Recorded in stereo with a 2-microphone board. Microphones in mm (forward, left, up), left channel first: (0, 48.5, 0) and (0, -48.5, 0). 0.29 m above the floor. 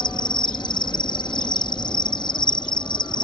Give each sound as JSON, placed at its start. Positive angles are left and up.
{"t": 0.0, "sound": "an insect", "side_deg": 55}